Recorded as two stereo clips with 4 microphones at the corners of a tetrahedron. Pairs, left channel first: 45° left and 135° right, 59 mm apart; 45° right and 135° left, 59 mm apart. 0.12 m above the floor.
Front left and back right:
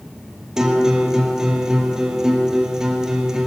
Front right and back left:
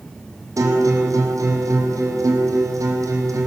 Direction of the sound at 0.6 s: 145° left.